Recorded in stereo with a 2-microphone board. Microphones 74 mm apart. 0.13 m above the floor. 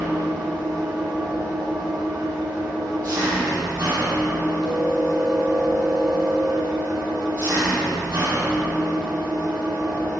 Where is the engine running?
50° right (ahead or behind), 2.5 m.